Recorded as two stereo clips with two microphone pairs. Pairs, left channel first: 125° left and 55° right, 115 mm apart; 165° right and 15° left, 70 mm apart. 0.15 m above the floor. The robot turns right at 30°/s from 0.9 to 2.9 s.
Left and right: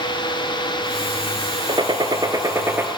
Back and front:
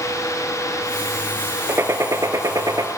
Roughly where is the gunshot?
Ahead right.